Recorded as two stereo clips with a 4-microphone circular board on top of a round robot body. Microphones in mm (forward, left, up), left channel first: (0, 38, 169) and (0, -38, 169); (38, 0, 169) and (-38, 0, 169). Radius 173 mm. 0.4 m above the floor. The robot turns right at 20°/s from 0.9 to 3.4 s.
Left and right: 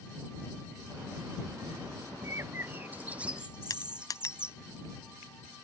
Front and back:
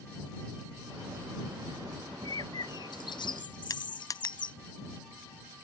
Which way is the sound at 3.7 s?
45° left.